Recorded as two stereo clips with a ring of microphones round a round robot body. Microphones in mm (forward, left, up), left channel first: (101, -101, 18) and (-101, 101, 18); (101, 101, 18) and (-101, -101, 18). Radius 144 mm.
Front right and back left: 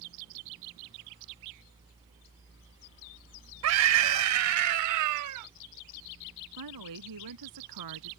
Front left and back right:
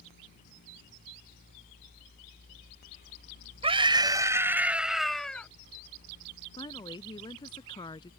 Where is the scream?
155° left; by 5.5 s 130° left.